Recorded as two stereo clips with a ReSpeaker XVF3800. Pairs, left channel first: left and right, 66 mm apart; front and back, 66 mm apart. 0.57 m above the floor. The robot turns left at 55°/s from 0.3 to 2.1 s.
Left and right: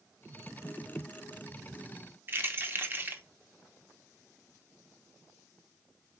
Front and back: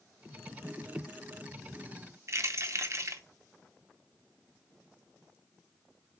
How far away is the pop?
No pop in this recording.